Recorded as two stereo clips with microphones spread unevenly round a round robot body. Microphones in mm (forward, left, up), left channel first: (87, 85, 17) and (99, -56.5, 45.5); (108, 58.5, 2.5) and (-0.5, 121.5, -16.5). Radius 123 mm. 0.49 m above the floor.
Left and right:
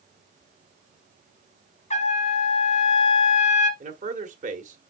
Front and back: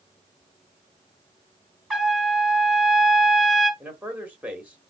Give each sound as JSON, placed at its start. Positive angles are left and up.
{"t": 1.9, "sound": "a trumpet", "azimuth_deg": 65, "distance_m": 4.0}
{"t": 3.8, "sound": "a man speaking", "azimuth_deg": -130, "distance_m": 1.3}